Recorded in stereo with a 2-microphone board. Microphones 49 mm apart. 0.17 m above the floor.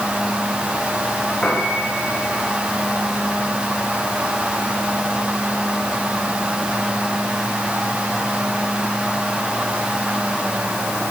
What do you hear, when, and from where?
1.4 s a piano: 20° left (ahead or behind), 9.5 m